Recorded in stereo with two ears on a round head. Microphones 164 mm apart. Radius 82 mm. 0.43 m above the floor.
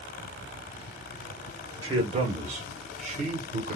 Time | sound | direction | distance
1.8 | a man speaking | 30° right (ahead or behind) | 1.4 m